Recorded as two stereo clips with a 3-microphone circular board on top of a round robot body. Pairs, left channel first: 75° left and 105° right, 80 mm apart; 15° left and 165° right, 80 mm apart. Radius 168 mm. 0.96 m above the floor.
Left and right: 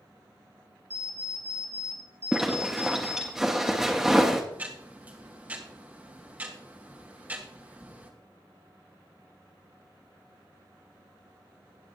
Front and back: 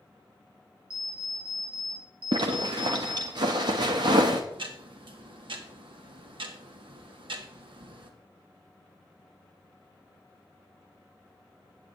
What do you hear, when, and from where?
0.9 s an alarm clock: 165° right, 2.5 m
2.3 s a zipper: 170° left, 0.5 m
4.5 s ticking: 175° right, 1.4 m